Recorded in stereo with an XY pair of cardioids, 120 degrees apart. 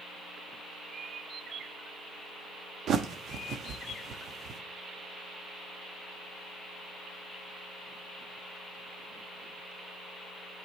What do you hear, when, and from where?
2.9 s a bird: 60° right, 0.8 m